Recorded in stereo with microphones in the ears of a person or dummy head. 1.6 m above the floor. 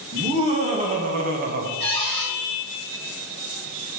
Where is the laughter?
35° right (ahead or behind), 3 m; by 1.7 s 60° right (ahead or behind), 1.7 m.